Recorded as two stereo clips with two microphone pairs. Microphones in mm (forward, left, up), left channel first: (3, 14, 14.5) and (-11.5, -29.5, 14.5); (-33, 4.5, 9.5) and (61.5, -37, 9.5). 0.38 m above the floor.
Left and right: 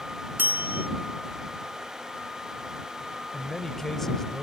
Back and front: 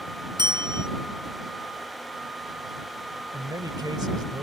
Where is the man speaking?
5° right.